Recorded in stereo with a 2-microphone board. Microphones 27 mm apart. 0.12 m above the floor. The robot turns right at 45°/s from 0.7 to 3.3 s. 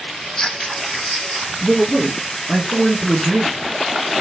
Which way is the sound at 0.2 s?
150° left.